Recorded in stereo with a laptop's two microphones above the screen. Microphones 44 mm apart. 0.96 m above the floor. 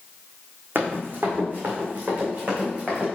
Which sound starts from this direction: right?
Running footsteps, at 0.8 s.